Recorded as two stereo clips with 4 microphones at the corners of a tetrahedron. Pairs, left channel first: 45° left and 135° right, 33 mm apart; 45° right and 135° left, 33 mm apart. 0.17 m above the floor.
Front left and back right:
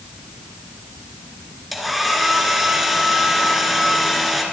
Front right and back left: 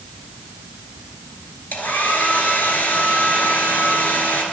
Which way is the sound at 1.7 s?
45° right.